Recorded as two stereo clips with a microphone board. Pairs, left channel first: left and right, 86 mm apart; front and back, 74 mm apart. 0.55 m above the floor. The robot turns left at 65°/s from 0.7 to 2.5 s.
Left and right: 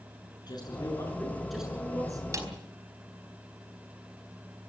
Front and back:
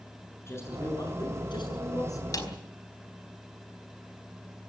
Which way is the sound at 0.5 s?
50° left.